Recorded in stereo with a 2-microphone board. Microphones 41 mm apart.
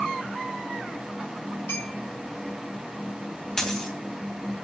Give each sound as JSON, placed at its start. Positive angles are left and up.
{"t": 1.7, "sound": "a clink", "side_deg": 80, "distance_m": 6.0}
{"t": 3.6, "sound": "a dropped coin", "side_deg": 10, "distance_m": 3.0}